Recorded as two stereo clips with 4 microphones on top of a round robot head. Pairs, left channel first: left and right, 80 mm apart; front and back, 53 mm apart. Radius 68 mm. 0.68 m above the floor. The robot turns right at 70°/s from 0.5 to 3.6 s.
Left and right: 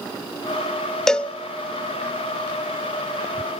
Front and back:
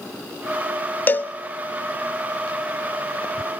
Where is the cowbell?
10° left, 0.8 m; by 1.3 s 30° left, 0.8 m.